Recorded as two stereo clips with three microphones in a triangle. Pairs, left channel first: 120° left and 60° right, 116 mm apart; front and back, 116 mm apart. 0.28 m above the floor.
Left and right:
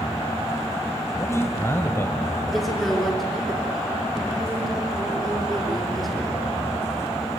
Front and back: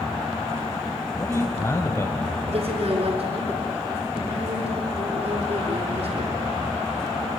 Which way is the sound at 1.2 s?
60° left.